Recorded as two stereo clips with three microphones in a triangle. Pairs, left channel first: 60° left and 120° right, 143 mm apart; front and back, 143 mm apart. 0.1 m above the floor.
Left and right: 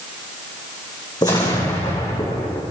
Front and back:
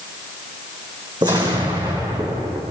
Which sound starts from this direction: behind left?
An explosion, at 1.2 s.